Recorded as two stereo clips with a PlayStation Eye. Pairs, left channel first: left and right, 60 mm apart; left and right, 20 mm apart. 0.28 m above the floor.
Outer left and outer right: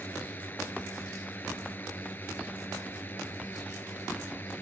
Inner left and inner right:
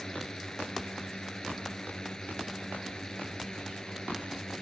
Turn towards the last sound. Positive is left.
turn(degrees=35)  # may be behind; listen again after turning